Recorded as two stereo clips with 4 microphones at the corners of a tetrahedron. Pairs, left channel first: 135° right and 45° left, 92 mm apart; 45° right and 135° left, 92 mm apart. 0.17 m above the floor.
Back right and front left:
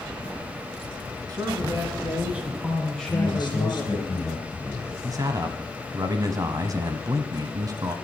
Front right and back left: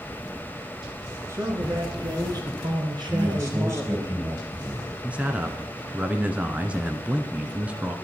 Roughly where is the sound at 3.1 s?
Behind.